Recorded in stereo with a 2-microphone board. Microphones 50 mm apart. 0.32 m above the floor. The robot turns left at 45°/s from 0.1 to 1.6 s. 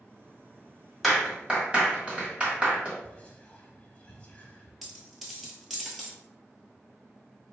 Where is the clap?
Centre (ahead or behind), 1.7 m; by 2.9 s 20° right (ahead or behind), 1.7 m.